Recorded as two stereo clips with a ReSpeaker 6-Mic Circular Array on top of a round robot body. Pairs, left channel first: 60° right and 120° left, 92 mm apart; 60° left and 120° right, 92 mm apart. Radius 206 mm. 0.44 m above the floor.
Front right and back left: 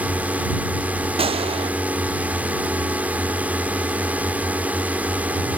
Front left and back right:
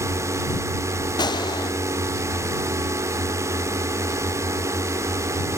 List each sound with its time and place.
0.0 s a drone: 170° right
1.2 s a gunshot: 100° left